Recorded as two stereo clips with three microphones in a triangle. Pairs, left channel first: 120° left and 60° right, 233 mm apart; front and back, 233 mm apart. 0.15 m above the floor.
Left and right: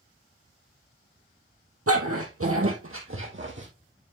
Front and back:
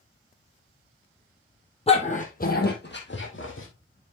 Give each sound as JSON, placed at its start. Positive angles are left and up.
{"t": 1.9, "sound": "a dog barking", "azimuth_deg": -65, "distance_m": 1.9}